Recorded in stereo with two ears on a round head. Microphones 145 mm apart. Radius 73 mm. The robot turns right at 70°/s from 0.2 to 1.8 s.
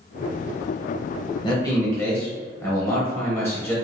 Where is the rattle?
I don't hear a rattle.